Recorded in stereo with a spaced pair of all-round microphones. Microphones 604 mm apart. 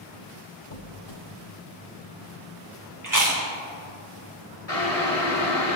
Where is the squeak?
40° left (ahead or behind), 0.7 m.